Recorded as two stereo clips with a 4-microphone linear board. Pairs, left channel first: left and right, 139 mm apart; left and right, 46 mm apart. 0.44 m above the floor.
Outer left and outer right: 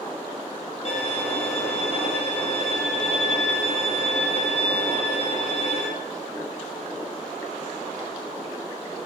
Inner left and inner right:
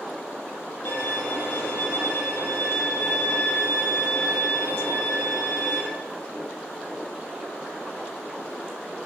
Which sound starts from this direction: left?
A violin, at 0.8 s.